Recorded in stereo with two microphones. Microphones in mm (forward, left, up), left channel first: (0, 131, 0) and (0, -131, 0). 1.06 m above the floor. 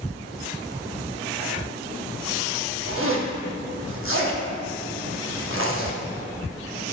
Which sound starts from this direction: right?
A zipper, at 2.9 s.